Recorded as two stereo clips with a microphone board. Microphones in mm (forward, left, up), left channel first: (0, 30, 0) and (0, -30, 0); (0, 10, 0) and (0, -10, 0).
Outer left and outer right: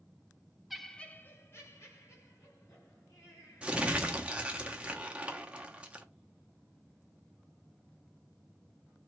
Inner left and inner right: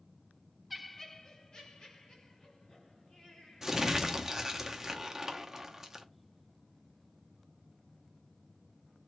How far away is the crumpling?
About 0.7 m.